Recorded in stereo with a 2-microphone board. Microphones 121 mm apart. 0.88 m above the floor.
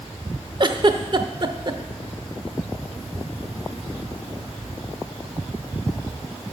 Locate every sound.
0.6 s a giggle: 40° right (ahead or behind), 0.7 m